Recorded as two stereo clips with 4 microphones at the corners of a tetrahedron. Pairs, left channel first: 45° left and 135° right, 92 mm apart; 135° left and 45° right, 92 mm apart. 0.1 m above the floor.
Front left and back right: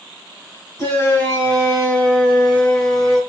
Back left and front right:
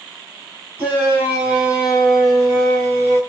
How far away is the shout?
About 1.9 m.